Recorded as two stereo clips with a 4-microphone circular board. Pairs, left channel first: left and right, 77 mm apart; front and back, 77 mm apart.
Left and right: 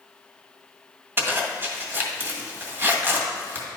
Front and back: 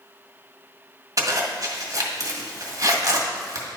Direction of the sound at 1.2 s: 150° right.